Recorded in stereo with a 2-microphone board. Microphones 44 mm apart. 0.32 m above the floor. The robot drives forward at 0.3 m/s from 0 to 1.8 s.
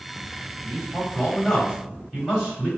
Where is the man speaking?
5° right (ahead or behind), 1.9 m.